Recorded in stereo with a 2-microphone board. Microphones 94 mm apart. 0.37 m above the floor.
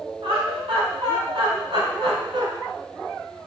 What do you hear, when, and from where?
0.2 s laughter: 70° right (ahead or behind), 3 m; by 2.5 s 60° right (ahead or behind), 2 m